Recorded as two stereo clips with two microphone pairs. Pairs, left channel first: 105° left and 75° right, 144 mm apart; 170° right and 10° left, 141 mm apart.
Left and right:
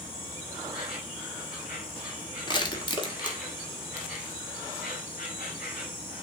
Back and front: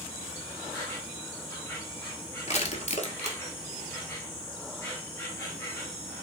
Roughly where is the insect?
Behind left.